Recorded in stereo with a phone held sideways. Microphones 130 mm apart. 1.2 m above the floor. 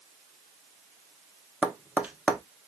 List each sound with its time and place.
1.6 s tapping: 10° right (ahead or behind), 0.7 m